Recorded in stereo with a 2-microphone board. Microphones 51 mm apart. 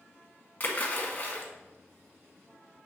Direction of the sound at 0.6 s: 40° left (ahead or behind).